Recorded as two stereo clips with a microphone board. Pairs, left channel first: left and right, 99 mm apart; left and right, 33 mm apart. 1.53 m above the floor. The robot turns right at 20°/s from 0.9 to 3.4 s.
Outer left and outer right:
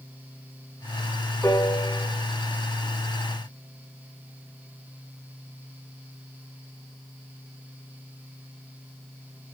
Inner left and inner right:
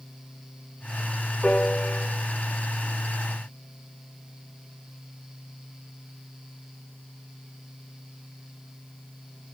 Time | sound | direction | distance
1.4 | a piano | 30° left (ahead or behind) | 2.5 m